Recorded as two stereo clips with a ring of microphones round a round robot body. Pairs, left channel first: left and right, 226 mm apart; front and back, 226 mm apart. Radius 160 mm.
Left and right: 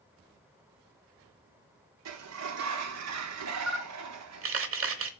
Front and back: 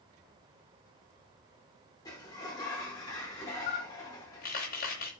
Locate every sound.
2.0 s a sliding door: 80° right, 0.9 m
3.7 s a camera shutter: 65° right, 1.0 m